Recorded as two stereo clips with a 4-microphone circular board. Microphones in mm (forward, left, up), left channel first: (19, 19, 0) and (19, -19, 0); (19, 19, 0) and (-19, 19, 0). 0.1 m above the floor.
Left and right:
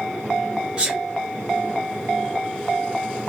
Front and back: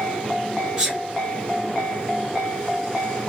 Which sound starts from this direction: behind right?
A sneeze, at 0.8 s.